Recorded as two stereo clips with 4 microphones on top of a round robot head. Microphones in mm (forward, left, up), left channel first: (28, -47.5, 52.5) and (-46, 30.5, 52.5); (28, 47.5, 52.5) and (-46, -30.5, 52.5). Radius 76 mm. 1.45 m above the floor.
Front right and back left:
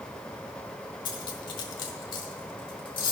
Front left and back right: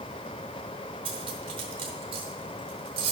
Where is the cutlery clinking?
90° right, 0.9 m.